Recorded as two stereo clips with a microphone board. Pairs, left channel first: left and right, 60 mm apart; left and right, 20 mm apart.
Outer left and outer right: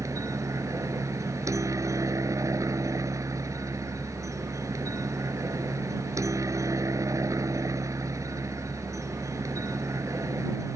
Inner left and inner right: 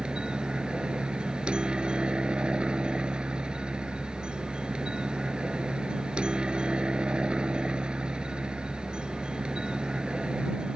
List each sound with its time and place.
0.0 s a helicopter: 65° right (ahead or behind)